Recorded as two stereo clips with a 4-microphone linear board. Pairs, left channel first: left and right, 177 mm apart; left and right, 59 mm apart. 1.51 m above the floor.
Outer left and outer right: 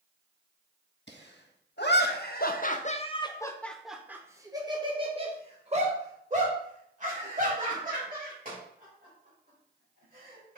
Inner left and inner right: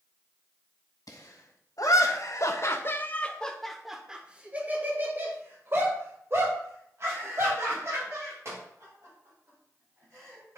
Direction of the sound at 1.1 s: 80° left.